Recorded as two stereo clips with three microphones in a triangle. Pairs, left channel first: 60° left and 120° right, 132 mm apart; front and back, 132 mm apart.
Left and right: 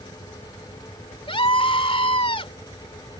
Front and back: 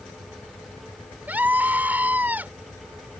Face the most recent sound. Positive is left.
turn(degrees=105)